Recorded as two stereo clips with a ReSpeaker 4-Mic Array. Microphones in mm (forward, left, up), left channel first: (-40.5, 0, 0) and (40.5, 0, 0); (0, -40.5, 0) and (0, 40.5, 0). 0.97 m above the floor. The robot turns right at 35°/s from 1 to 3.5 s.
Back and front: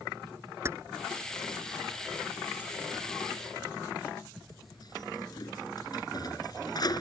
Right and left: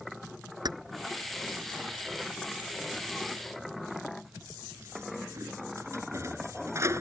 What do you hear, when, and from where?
0.7 s keys jangling: 55° left; by 7.0 s 145° left